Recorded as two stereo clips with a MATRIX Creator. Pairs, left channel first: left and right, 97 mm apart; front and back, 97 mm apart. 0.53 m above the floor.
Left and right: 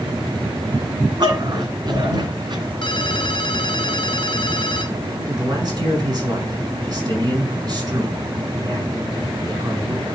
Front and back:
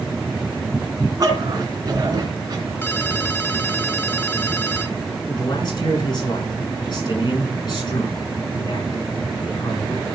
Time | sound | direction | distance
1.2 | a dog barking | 130° right | 3 m
2.8 | a ringtone | 65° left | 1.2 m
5.3 | a man speaking | 45° right | 5.5 m